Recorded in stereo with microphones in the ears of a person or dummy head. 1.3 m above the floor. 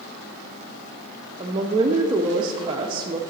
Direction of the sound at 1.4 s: 25° right (ahead or behind).